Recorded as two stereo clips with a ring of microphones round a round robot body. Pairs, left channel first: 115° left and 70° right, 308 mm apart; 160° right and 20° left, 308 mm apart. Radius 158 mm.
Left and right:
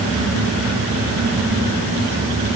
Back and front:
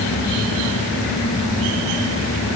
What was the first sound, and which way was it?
Only background noise.